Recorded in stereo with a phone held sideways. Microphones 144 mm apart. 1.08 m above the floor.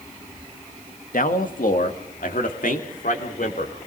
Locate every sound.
1.1 s a man speaking: 70° left (ahead or behind), 1.6 m